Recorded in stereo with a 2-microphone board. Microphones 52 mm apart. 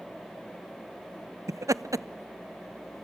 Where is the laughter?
80° right, 0.6 m.